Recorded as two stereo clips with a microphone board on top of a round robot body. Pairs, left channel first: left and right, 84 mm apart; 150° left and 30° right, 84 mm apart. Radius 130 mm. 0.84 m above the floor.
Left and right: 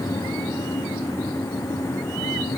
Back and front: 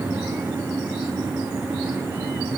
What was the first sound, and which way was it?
Only background noise.